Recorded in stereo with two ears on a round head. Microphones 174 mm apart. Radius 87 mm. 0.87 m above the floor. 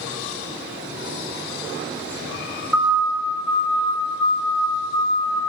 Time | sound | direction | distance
2.7 | a siren | 5° right (ahead or behind) | 6 m